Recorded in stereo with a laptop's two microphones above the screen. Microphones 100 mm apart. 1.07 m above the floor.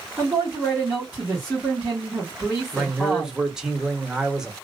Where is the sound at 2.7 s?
5° right (ahead or behind), 0.9 m.